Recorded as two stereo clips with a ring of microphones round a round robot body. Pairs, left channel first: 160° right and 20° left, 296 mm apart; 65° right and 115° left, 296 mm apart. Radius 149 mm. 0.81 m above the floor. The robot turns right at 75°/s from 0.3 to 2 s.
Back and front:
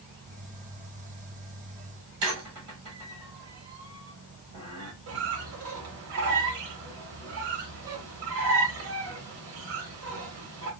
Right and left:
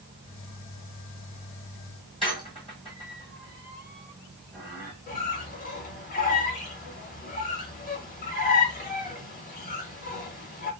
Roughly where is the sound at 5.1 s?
Ahead.